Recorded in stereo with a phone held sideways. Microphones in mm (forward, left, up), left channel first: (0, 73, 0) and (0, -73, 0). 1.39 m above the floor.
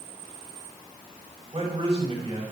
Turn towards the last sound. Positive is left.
turn(degrees=-40)  # may be behind; listen again after turning